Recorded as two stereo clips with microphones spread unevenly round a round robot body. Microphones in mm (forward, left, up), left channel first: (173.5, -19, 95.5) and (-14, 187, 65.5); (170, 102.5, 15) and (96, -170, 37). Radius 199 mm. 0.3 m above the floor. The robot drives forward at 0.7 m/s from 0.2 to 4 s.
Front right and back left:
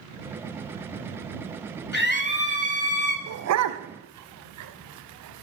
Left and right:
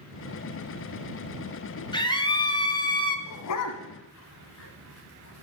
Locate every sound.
1.9 s a scream: 5° left, 3 m
3.3 s a dog barking: 100° left, 1.0 m; by 5.4 s 125° left, 1.2 m